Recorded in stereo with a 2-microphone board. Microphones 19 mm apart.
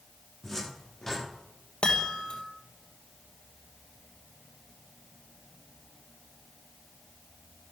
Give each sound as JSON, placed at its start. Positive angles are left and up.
{"t": 0.4, "sound": "a cupboard door", "side_deg": 15, "distance_m": 9.0}
{"t": 1.8, "sound": "a chime", "side_deg": 65, "distance_m": 2.5}